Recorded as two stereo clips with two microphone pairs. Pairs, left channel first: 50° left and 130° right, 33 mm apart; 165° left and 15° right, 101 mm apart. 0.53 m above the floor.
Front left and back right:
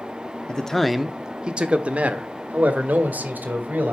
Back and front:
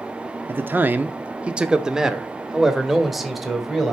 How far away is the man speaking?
About 0.7 m.